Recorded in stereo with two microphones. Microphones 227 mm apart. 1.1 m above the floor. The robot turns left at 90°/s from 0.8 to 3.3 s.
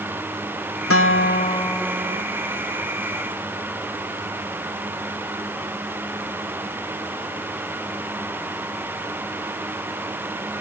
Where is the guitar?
85° left; by 2.2 s 35° right.